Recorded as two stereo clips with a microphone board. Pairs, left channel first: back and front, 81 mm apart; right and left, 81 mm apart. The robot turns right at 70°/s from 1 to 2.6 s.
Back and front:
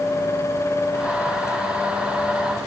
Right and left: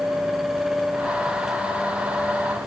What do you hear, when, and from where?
Only background noise.